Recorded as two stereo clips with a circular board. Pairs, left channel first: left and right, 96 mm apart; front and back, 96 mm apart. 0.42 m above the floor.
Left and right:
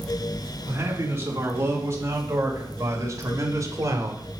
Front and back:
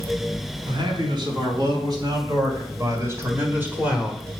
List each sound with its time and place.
0.7 s a man speaking: 155° right, 3.5 m; by 4.2 s 100° right, 1.6 m